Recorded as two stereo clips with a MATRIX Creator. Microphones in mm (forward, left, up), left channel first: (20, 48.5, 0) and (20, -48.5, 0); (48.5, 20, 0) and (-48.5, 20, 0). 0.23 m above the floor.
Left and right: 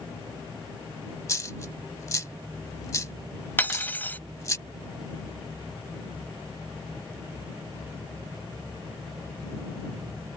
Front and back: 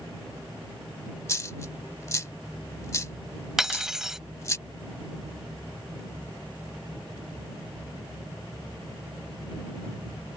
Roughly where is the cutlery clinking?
Left.